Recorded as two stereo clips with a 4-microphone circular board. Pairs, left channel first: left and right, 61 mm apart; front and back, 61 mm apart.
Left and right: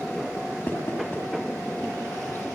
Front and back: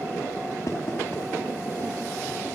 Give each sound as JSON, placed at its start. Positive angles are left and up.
{"t": 0.7, "sound": "knocking", "azimuth_deg": 40, "distance_m": 8.0}